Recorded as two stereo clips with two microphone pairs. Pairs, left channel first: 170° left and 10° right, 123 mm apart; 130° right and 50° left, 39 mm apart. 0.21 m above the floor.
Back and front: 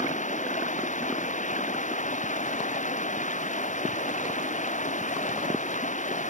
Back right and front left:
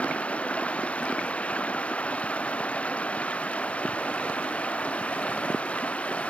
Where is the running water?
170° left.